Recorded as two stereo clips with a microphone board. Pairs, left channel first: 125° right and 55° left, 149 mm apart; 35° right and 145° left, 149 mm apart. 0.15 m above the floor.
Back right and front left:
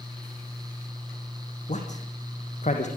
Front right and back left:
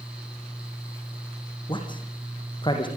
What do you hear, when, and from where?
1.7 s a man speaking: 90° right, 4.5 m